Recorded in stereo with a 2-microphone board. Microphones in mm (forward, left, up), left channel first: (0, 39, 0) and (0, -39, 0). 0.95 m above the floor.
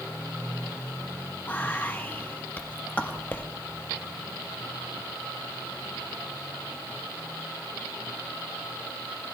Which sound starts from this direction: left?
Whispering, at 1.5 s.